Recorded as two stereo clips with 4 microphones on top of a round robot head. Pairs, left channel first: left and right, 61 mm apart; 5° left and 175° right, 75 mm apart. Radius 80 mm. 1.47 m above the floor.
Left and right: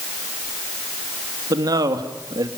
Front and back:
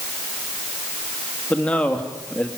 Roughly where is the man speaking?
Right.